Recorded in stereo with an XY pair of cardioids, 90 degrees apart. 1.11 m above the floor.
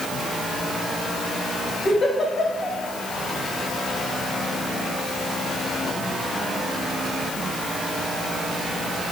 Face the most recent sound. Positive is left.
turn(degrees=50)